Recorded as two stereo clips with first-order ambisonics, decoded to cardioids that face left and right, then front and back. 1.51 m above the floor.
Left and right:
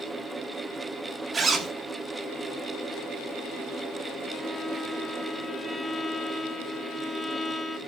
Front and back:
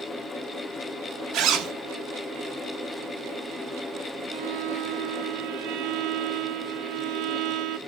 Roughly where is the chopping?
No chopping in this recording.